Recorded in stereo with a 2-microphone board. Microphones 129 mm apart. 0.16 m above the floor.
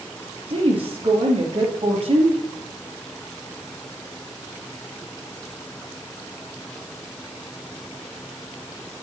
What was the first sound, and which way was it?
A woman speaking, 45° right (ahead or behind).